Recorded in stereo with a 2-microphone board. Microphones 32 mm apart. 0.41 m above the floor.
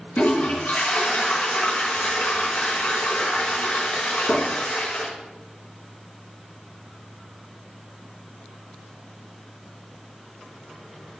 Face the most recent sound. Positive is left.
turn(degrees=70)  # may be behind; listen again after turning